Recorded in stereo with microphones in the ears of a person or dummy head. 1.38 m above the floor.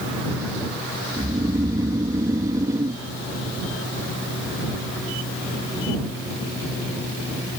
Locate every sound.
1.2 s snoring: 20° right (ahead or behind)